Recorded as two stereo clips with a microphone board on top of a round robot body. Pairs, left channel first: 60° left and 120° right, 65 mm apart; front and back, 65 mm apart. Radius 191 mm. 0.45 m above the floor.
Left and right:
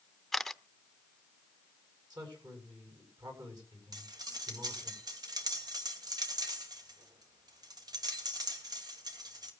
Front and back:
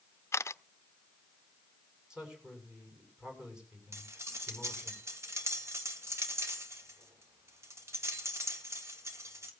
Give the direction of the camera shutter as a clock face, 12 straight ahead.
1 o'clock.